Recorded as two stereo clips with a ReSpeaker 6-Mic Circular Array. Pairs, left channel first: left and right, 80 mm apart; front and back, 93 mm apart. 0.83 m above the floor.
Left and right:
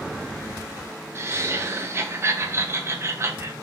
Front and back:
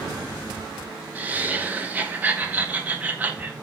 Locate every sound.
1.1 s laughter: 120° right, 0.6 m